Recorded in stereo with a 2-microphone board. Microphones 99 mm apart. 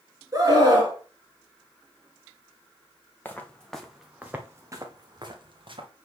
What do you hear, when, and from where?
0.3 s a scream: 35° right (ahead or behind), 2.5 m
3.2 s footsteps: 20° left (ahead or behind), 1.6 m; by 5.9 s 60° right (ahead or behind), 2 m